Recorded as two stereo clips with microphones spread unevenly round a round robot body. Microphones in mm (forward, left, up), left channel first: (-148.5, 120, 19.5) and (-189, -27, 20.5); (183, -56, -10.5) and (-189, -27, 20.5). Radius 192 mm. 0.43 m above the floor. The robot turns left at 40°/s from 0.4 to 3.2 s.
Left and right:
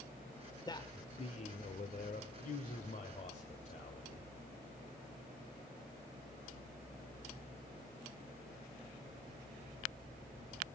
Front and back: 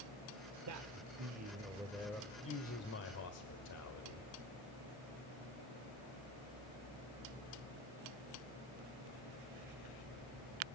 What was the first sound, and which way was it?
A man speaking, 135° left.